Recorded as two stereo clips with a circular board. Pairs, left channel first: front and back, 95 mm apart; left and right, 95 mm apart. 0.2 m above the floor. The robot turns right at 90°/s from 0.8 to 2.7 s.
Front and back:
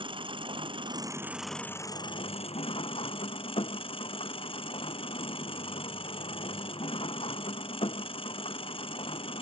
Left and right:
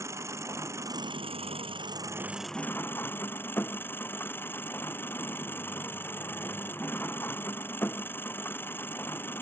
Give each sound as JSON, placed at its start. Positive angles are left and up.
{"t": 0.0, "sound": "an engine running", "azimuth_deg": -150}